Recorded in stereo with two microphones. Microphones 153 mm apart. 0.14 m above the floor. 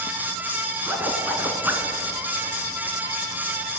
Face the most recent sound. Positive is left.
turn(degrees=-10)  # may be behind; listen again after turning